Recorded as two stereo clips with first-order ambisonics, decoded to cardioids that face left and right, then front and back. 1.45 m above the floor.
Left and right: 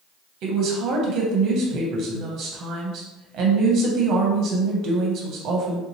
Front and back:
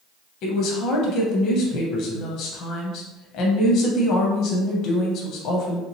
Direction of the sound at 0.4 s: 45° right.